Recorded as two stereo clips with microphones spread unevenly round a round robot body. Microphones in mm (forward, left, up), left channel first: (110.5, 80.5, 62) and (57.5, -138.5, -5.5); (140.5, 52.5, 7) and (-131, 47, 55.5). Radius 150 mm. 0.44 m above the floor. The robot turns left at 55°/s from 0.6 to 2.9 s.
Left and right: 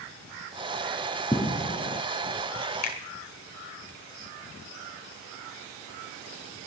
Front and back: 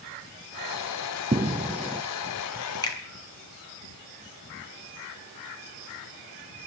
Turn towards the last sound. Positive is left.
turn(degrees=65)